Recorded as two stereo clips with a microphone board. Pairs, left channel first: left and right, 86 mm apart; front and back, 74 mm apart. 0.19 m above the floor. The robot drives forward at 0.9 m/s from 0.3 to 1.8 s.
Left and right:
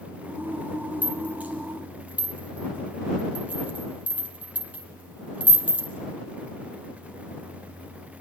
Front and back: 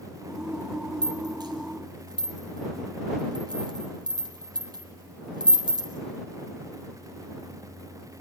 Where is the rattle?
160° right, 4.5 m; by 5.9 s 165° right, 5.5 m.